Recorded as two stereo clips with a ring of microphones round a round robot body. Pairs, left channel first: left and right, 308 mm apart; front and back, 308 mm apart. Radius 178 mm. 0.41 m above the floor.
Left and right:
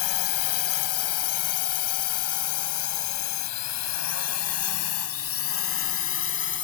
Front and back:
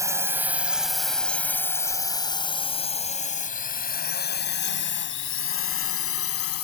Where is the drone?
100° left; by 6.6 s 40° left.